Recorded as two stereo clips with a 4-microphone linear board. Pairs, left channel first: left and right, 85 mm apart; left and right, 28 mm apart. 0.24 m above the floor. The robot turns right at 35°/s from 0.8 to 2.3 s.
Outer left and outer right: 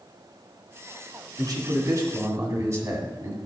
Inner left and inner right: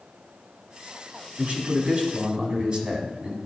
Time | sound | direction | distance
1.4 | a man speaking | 80° right | 2 m